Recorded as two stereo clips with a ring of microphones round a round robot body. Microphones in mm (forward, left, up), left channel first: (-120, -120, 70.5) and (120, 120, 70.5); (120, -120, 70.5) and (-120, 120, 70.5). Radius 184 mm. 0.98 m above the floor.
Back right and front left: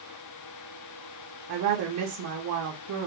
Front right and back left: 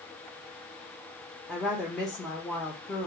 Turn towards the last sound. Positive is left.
turn(degrees=45)